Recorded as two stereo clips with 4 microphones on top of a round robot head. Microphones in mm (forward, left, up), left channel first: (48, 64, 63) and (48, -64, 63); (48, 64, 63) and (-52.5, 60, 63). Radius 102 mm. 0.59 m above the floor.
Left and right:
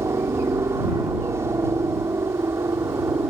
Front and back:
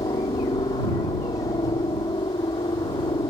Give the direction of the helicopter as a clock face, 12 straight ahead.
1 o'clock.